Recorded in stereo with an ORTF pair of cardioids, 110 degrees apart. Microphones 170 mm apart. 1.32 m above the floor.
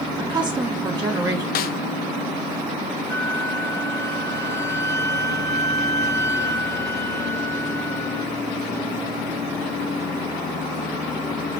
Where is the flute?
15° left, 1.7 m.